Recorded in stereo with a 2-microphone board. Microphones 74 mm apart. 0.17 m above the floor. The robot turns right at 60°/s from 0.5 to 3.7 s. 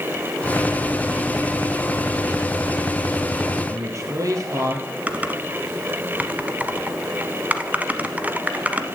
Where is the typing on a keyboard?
20° right (ahead or behind), 1.0 m.